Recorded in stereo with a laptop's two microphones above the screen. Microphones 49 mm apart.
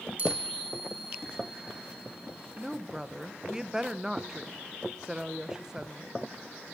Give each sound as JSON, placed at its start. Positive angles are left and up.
{"t": 0.2, "sound": "a chime", "side_deg": -40, "distance_m": 2.0}
{"t": 2.6, "sound": "a woman speaking", "side_deg": -15, "distance_m": 0.6}